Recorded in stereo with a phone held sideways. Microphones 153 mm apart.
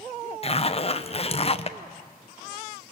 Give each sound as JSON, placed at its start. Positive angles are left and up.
{"t": 0.4, "sound": "a zipper", "side_deg": 40, "distance_m": 0.8}